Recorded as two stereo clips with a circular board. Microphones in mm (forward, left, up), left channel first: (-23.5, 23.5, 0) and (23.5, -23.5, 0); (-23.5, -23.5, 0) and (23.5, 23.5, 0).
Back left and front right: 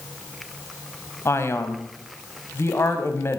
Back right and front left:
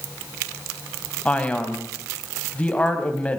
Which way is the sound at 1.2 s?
160° left.